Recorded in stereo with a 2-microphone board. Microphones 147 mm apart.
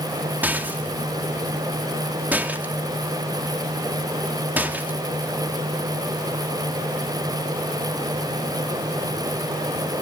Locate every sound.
0.4 s a rattle: 10° right (ahead or behind), 1.2 m